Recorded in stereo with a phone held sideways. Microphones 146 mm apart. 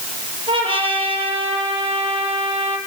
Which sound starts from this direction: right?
A trumpet, at 0.5 s.